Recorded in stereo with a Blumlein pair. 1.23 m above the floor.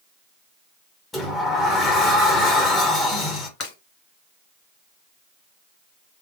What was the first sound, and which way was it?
A sliding door, 15° left.